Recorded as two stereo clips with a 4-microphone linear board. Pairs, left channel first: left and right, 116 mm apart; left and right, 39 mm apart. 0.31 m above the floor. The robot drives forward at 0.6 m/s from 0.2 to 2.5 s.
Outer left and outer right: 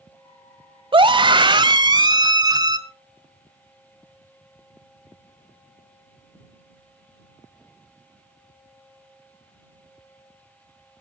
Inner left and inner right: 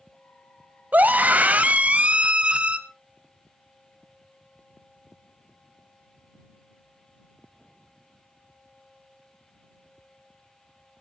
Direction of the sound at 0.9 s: 45° right (ahead or behind).